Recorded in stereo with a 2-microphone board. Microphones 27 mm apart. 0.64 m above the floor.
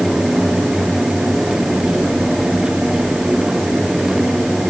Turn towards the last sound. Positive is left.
No sound to turn to.